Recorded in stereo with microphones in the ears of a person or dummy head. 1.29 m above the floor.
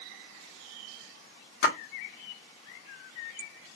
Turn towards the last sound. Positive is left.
turn(degrees=70)  # may be behind; listen again after turning